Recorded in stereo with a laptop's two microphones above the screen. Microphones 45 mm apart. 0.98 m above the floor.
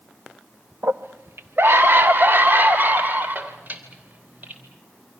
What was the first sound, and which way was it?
A scream, 80° right.